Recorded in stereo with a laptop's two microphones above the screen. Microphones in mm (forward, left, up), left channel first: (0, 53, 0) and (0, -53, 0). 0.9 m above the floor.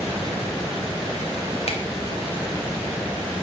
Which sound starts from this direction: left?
A finger snap, at 1.7 s.